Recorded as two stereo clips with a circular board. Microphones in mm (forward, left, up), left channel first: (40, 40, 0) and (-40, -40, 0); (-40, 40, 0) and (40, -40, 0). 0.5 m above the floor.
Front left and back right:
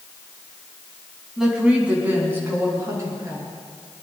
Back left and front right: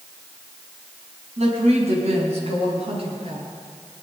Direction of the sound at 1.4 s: 50° right.